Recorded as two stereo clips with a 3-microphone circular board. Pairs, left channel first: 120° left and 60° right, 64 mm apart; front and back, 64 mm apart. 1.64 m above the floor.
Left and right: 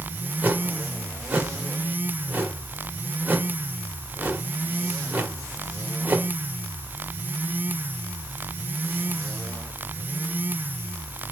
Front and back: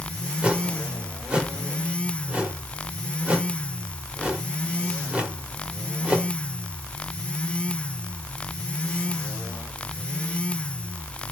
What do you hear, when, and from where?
0.4 s a whoosh: 115° right, 1.8 m